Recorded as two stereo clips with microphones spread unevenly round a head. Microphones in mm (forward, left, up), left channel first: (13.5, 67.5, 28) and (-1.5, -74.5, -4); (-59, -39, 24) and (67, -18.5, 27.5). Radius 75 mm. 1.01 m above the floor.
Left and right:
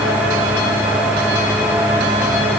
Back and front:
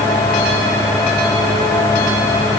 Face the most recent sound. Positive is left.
No sound to turn to.